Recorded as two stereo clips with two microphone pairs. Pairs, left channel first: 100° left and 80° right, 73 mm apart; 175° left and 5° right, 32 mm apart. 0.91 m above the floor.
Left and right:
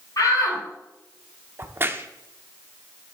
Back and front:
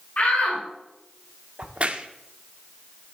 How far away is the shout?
About 4.5 m.